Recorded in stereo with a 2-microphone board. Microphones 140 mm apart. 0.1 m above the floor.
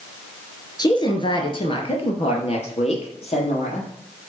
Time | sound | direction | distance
0.8 | a woman speaking | 30° left (ahead or behind) | 1.5 m